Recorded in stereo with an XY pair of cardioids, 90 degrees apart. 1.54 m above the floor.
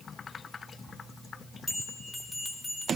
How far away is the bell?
About 3 m.